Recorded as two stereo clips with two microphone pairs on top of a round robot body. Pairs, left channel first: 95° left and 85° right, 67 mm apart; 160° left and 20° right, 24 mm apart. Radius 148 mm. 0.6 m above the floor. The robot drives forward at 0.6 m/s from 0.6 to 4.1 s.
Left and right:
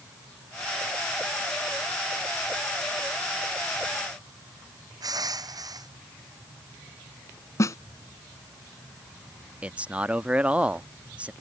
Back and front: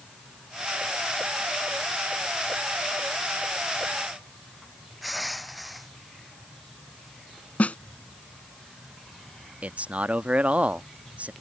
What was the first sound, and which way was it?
Crushing, 110° right.